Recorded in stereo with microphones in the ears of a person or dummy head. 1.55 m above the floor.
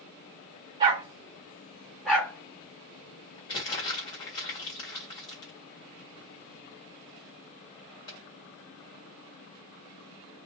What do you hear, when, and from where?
0.8 s a dog barking: 30° right (ahead or behind), 1.2 m; by 3.4 s 25° left (ahead or behind), 1.8 m
3.5 s crumpling: 30° left (ahead or behind), 1.5 m